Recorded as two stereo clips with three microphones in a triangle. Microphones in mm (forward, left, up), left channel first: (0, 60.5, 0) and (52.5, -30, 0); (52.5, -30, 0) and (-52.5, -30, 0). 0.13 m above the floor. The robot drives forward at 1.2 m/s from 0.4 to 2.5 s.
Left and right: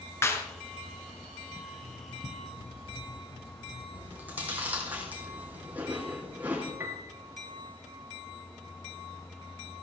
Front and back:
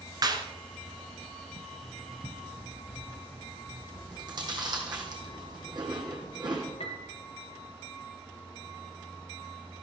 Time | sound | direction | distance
0.2 | a clap | 170° left | 1.4 m
1.8 | writing | 80° left | 2 m
3.9 | chewing | 135° right | 2.5 m
6.8 | a piano | 5° left | 1.3 m